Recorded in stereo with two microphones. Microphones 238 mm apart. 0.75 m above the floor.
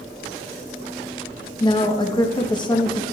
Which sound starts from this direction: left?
A woman speaking, at 1.6 s.